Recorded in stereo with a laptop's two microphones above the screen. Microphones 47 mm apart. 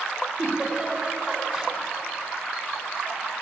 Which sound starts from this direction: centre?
A giggle, at 0.4 s.